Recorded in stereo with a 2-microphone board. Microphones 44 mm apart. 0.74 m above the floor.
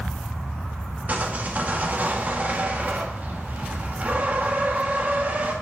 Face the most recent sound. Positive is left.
turn(degrees=-40)  # may be behind; listen again after turning